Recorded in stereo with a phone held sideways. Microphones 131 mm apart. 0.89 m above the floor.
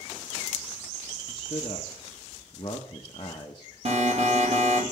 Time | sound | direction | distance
1.3 | a man speaking | 35° left (ahead or behind) | 1.1 m
3.9 | an alarm | 55° right (ahead or behind) | 3.5 m